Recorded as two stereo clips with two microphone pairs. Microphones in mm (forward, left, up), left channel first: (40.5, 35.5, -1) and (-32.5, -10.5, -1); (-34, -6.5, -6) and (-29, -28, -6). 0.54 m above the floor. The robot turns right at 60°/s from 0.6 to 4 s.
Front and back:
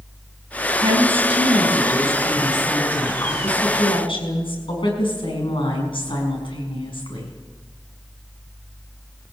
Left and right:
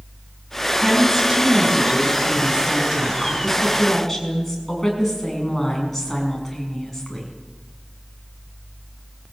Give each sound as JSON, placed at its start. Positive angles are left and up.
{"t": 0.8, "sound": "a woman speaking", "azimuth_deg": -170, "distance_m": 6.0}